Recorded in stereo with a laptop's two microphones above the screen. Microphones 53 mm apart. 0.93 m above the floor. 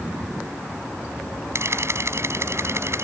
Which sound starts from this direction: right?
A camera shutter, at 1.6 s.